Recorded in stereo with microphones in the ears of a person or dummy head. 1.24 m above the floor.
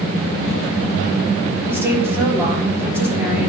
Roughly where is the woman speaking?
Centre.